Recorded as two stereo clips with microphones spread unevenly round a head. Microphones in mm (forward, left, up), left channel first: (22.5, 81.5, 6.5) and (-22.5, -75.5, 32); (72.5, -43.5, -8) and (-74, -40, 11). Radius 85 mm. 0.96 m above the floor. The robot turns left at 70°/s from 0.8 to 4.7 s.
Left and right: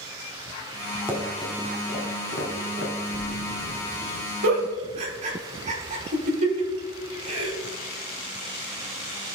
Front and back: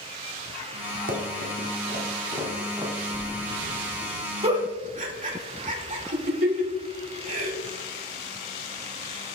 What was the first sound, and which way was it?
Running footsteps, 175° right.